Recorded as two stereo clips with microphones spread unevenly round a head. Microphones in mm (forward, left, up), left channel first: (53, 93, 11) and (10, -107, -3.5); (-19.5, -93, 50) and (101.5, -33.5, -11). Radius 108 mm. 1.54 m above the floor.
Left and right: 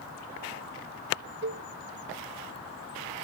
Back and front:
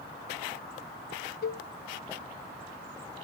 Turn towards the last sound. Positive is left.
turn(degrees=-150)